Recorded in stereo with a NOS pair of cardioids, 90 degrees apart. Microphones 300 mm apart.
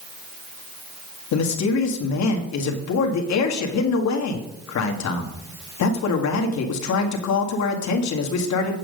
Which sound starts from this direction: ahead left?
A man speaking, at 1.3 s.